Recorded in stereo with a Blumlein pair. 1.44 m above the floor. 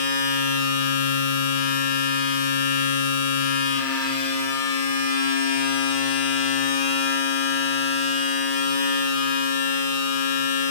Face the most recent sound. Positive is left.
turn(degrees=50)